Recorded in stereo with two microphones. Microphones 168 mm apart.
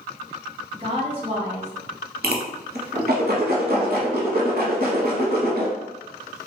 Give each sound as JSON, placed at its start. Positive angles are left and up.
{"t": 0.7, "sound": "a woman speaking", "side_deg": -35, "distance_m": 1.1}
{"t": 2.2, "sound": "a whoosh", "side_deg": -65, "distance_m": 0.8}